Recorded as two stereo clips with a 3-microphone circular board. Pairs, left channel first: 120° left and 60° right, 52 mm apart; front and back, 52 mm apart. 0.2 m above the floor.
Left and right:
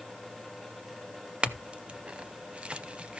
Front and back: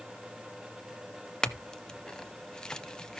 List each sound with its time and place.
1.4 s a clink: 50° right, 0.7 m